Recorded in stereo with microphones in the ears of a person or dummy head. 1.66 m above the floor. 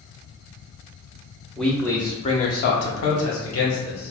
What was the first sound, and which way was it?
A man speaking, centre (ahead or behind).